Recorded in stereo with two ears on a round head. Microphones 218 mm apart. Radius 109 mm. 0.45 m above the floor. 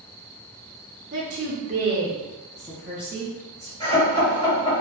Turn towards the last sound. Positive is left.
turn(degrees=20)  # may be behind; listen again after turning